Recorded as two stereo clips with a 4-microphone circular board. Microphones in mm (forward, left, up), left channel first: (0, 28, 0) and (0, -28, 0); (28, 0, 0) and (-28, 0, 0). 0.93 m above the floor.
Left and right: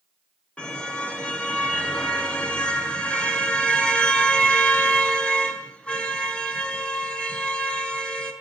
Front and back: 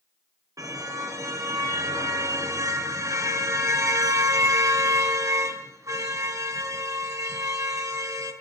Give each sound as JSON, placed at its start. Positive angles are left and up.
{"t": 0.6, "sound": "a car horn", "azimuth_deg": 160, "distance_m": 6.0}